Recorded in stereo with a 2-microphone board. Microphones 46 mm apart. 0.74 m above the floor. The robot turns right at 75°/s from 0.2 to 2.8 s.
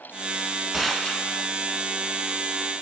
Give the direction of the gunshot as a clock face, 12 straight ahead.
12 o'clock.